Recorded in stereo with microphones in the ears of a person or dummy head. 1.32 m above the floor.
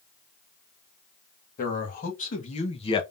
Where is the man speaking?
50° left (ahead or behind), 1.9 m; by 3.0 s 25° left (ahead or behind), 0.9 m.